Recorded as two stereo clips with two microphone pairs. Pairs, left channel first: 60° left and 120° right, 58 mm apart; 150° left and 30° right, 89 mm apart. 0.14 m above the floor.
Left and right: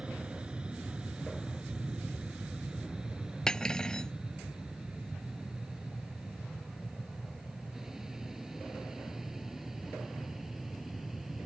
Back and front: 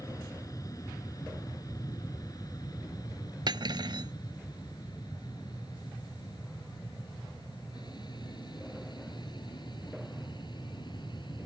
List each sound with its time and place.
0.0 s an aircraft: 175° left; by 11.5 s 155° left
3.5 s cutlery clinking: 15° right